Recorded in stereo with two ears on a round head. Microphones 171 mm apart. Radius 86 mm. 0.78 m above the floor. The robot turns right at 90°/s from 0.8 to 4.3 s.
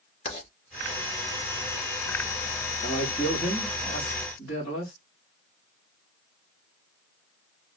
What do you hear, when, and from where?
0.2 s writing: 30° left (ahead or behind), 3 m
2.8 s a man speaking: 55° right, 2.5 m; by 4.9 s 75° left, 2.5 m